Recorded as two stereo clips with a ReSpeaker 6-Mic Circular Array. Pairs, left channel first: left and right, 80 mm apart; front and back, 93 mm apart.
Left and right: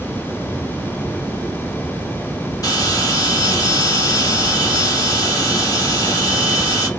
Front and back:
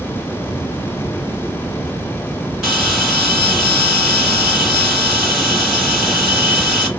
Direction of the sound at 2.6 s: 95° left.